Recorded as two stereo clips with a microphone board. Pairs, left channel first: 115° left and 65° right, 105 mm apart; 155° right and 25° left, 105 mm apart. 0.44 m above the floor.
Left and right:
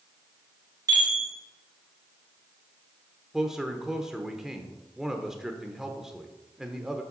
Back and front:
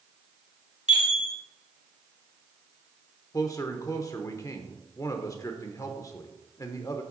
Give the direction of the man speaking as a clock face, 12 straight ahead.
5 o'clock.